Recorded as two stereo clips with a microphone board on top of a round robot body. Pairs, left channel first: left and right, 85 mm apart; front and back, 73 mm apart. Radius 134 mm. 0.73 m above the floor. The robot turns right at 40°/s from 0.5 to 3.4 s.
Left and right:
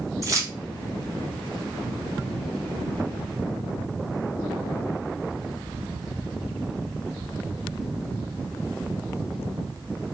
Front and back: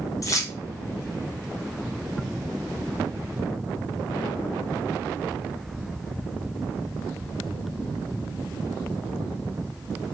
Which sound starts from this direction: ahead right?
Keys jangling, at 0.2 s.